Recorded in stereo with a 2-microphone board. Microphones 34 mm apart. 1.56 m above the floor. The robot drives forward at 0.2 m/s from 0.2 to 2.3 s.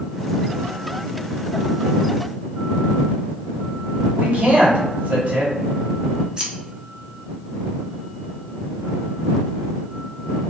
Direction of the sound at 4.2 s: 50° right (ahead or behind).